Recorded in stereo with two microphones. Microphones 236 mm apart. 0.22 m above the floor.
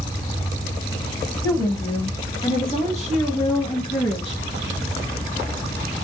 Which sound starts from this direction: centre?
A woman speaking, at 1.4 s.